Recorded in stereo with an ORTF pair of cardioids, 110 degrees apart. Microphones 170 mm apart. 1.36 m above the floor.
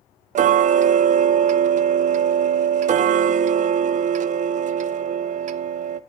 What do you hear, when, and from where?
0.3 s ticking: 45° right, 0.7 m